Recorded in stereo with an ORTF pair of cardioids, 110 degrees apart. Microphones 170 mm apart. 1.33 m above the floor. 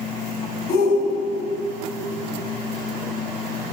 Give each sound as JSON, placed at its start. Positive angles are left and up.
{"t": 0.7, "sound": "a shout", "azimuth_deg": 65, "distance_m": 2.0}